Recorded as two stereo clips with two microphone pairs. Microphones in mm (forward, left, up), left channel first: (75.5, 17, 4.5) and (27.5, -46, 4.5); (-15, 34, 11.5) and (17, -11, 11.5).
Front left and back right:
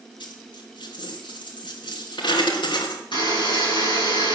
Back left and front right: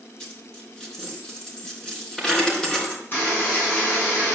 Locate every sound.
0.2 s a dropped coin: 50° left, 4 m
3.1 s a buzzer: 70° left, 9 m